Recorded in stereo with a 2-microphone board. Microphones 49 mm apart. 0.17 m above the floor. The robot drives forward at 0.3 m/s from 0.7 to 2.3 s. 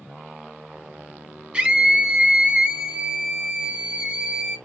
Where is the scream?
25° right (ahead or behind), 1.4 m.